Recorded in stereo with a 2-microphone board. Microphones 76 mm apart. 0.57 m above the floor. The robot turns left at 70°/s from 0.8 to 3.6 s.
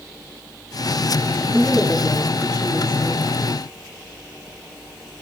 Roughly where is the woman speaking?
Ahead right.